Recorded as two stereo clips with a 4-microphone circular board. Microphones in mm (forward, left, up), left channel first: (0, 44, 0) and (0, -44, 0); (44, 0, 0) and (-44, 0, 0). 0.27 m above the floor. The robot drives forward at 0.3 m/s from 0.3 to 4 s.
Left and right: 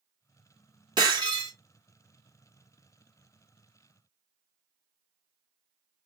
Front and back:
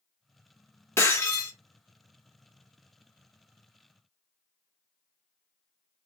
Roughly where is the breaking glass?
Ahead right.